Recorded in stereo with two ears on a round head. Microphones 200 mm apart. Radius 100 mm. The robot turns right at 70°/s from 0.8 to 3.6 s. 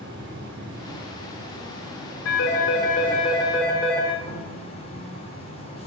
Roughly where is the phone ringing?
Left.